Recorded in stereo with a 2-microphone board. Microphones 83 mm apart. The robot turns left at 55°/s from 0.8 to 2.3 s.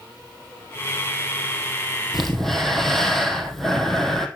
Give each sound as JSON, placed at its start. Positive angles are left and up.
{"t": 2.1, "sound": "breathing", "side_deg": -5, "distance_m": 1.7}